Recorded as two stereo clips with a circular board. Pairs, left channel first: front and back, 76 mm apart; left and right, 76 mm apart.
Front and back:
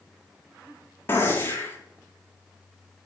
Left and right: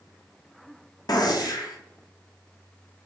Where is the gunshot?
60° left, 0.9 m.